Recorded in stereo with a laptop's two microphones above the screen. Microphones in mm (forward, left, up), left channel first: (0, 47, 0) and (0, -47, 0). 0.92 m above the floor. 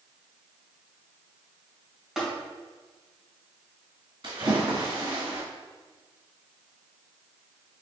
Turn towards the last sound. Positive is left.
turn(degrees=-60)  # may be behind; listen again after turning